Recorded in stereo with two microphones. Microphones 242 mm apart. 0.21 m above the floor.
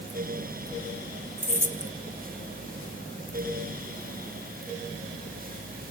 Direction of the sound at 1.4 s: 40° right (ahead or behind).